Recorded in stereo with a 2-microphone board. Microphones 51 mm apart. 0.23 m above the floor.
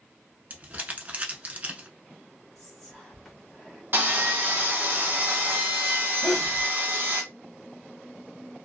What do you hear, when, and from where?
0.5 s crumpling: 35° right (ahead or behind), 0.6 m
2.5 s whispering: 5° left (ahead or behind), 1.3 m
3.9 s sawing: 45° right (ahead or behind), 1.1 m
6.2 s a sneeze: 20° left (ahead or behind), 1.0 m